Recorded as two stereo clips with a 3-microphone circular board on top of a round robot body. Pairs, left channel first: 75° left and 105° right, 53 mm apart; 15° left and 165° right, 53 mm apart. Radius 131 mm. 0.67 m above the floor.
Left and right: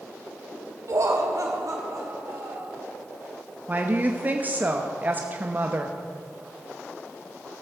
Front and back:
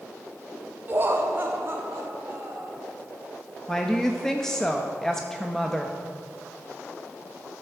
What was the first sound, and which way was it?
Laughter, 115° right.